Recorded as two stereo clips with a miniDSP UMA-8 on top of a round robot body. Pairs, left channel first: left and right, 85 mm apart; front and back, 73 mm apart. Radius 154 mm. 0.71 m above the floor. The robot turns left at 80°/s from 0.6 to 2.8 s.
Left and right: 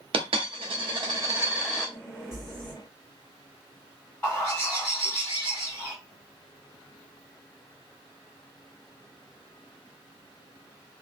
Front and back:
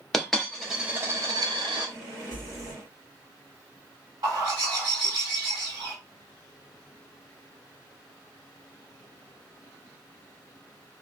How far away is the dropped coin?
About 0.7 m.